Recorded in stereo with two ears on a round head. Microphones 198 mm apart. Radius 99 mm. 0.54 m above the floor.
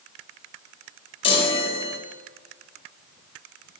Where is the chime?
25° left (ahead or behind), 1.4 m.